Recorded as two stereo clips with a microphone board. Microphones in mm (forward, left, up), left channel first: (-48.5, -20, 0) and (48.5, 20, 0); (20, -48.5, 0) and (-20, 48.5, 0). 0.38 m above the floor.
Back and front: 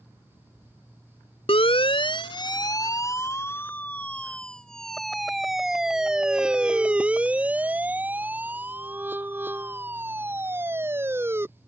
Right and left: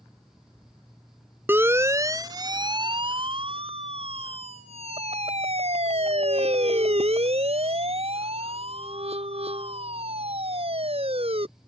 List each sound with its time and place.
1.5 s a siren: straight behind; by 11.4 s 90° left